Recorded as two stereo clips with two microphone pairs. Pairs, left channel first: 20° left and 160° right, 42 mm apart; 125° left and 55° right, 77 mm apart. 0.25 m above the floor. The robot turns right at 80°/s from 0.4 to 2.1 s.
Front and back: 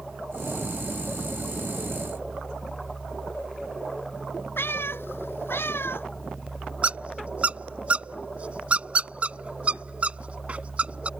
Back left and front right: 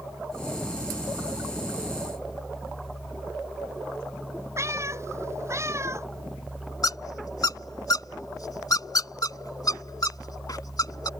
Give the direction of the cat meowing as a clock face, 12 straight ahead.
12 o'clock.